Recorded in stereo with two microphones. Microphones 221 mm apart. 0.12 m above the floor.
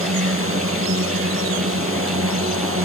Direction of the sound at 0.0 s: 65° right (ahead or behind).